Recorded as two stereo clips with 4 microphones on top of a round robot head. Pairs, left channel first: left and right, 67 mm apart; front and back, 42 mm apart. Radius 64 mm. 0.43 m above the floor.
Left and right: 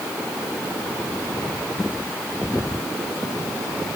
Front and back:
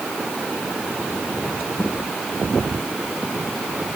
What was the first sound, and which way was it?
Only background noise.